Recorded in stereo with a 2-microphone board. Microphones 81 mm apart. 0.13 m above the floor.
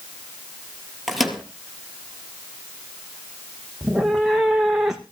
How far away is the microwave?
About 3 m.